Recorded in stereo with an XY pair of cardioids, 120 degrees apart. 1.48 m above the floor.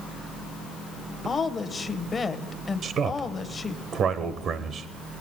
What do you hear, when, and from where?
1.2 s a woman speaking: 25° left, 1.2 m
2.8 s a man speaking: 55° right, 1.0 m